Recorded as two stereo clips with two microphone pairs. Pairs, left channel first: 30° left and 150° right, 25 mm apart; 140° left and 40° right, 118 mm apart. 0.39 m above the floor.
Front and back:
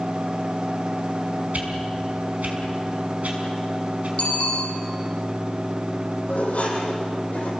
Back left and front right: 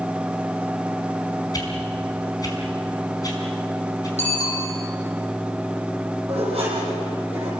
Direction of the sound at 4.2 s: 15° right.